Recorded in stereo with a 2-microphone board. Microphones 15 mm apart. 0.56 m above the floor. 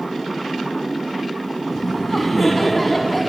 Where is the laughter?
5° right (ahead or behind), 4.5 m.